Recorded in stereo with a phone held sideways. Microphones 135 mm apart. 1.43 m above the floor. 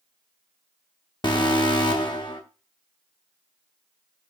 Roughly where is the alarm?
Left.